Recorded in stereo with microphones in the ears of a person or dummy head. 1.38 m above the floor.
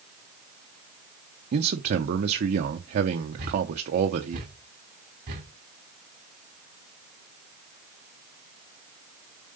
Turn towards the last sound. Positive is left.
turn(degrees=-45)  # may be behind; listen again after turning